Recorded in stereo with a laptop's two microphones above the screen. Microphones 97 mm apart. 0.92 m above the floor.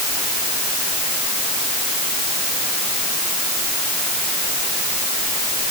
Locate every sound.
Only background noise.